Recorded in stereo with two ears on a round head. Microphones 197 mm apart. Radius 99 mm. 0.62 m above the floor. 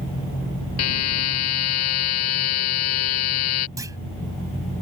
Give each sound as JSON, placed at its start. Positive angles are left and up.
{"t": 0.8, "sound": "a buzzer", "side_deg": 75}
{"t": 3.8, "sound": "a clunk", "side_deg": -15}